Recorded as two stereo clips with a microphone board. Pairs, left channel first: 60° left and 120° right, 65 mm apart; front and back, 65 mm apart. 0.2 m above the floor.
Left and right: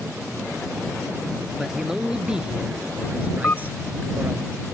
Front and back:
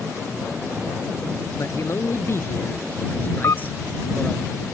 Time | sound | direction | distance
1.6 | a man speaking | 35° right | ?
3.4 | a camera shutter | 10° left | ?